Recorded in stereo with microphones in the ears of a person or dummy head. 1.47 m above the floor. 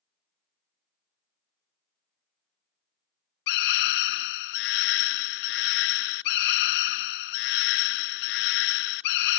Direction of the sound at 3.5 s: 55° left (ahead or behind).